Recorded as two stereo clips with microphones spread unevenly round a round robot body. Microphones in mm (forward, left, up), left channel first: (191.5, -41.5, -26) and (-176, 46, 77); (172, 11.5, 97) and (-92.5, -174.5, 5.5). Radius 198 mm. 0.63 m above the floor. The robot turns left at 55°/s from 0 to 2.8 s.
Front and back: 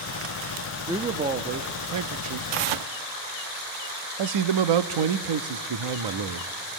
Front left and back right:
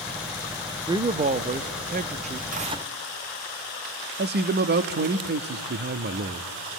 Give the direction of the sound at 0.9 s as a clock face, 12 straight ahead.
3 o'clock.